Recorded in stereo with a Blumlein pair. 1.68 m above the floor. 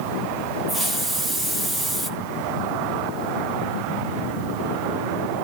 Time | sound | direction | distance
0.7 | a hiss | 15° right | 2 m